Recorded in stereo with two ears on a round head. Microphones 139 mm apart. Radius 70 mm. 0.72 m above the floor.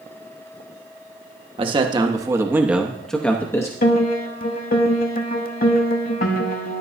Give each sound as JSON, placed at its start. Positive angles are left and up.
{"t": 1.6, "sound": "a man speaking", "side_deg": -35, "distance_m": 1.0}
{"t": 3.8, "sound": "a piano", "side_deg": 60, "distance_m": 0.9}